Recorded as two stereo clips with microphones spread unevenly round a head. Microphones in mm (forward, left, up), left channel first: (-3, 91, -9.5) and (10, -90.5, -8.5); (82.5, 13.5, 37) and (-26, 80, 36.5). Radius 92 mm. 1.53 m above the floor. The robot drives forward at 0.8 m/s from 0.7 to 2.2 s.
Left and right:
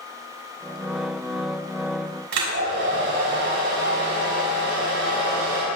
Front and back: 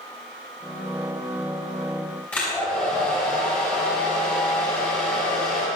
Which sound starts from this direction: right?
A hair dryer, at 2.3 s.